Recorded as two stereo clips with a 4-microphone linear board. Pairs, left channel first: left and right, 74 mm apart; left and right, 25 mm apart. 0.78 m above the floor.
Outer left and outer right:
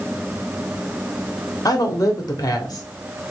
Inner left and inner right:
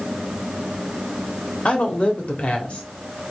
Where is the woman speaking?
55° left (ahead or behind), 1.6 m.